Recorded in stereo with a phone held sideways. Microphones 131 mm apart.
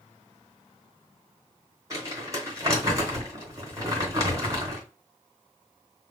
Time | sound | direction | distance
1.9 | crumpling | 25° right (ahead or behind) | 2.5 m